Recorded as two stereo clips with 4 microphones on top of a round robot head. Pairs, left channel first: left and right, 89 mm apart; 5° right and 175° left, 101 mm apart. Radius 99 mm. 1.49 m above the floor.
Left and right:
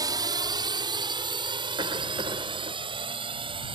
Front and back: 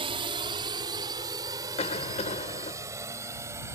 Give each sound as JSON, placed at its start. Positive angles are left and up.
{"t": 0.0, "sound": "a drone", "azimuth_deg": -140}
{"t": 1.8, "sound": "a cough", "azimuth_deg": -40}